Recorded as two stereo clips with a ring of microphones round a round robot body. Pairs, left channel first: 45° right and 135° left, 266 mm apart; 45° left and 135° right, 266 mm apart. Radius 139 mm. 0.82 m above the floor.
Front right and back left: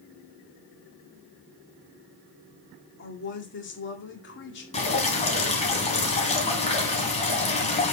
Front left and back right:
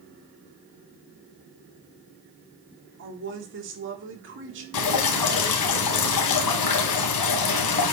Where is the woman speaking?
90° right, 2 m.